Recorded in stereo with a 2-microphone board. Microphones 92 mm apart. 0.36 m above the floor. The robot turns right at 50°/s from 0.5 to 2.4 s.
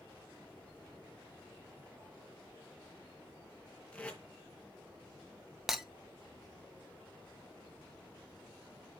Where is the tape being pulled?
15° left (ahead or behind), 3 m.